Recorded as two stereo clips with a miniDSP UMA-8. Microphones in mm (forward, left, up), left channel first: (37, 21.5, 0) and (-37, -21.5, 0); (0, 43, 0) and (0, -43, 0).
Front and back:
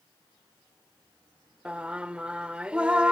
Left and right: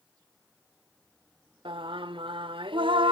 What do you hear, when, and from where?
1.6 s singing: 70° right, 0.8 m